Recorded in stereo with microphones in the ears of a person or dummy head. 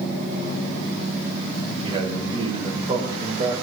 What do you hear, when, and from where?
1.8 s a man speaking: 30° right (ahead or behind), 4.5 m